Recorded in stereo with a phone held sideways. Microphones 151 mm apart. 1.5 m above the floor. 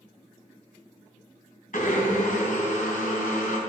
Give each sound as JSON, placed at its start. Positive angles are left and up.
{"t": 1.7, "sound": "a blender", "side_deg": 60, "distance_m": 3.0}